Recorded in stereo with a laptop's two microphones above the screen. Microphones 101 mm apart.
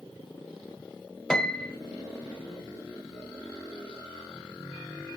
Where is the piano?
10° left (ahead or behind), 1.4 m.